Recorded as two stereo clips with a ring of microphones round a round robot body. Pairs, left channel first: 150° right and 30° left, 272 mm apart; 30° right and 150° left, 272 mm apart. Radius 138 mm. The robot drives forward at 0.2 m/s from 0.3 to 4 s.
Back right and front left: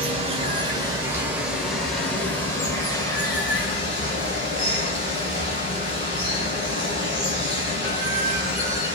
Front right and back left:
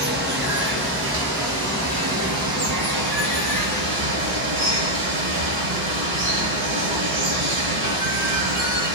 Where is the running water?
100° left, 0.8 m; by 8.9 s 140° left, 1.1 m.